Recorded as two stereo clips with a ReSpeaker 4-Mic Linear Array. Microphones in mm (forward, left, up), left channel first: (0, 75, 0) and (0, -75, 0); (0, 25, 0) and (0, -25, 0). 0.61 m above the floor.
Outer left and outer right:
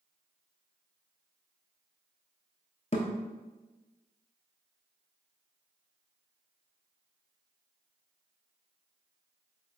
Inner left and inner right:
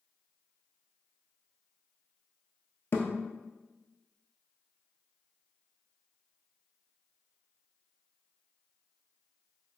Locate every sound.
2.9 s a thud: 50° left (ahead or behind), 0.8 m